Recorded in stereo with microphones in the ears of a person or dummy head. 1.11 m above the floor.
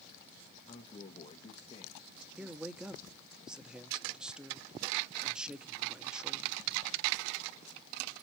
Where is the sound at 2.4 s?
5° right (ahead or behind), 0.6 m.